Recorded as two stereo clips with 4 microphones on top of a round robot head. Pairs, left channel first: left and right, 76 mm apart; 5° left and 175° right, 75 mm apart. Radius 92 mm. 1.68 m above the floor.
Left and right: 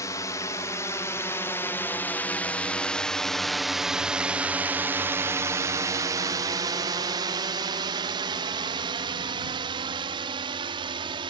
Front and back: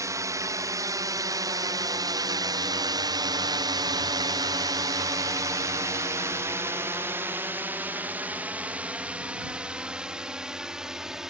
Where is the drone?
140° left; by 11.3 s 95° right.